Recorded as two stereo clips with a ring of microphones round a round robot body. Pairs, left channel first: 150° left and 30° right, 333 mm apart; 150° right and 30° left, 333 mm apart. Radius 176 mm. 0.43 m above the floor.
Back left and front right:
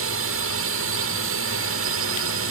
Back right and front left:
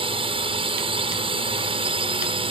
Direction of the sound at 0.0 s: 35° right.